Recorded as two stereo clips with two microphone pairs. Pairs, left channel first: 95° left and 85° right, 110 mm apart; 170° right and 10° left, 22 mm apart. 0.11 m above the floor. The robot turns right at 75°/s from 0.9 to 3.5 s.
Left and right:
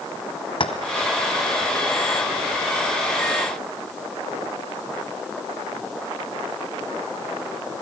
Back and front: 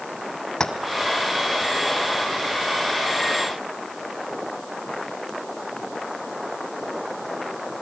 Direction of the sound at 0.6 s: 130° left.